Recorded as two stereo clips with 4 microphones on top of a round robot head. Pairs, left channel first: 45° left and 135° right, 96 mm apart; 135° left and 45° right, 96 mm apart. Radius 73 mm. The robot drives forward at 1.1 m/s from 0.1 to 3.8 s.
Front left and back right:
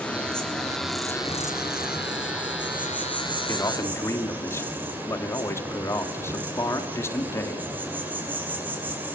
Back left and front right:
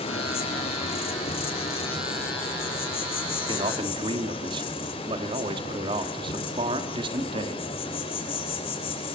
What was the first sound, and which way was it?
An insect, 125° left.